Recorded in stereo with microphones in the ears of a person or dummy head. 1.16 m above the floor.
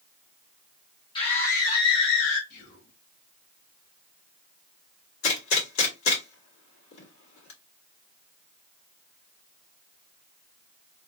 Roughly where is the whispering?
Left.